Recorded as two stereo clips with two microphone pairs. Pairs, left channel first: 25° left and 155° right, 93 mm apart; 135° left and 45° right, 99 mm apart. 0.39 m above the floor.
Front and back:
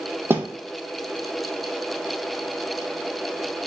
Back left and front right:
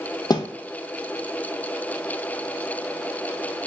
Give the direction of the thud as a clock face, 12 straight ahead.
7 o'clock.